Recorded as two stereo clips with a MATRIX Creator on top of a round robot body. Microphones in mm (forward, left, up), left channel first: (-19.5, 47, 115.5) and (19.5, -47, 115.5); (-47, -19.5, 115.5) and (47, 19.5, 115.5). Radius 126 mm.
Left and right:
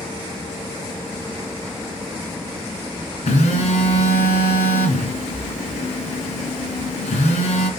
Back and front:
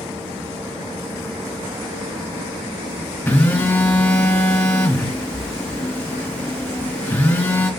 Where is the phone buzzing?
125° left, 3 m.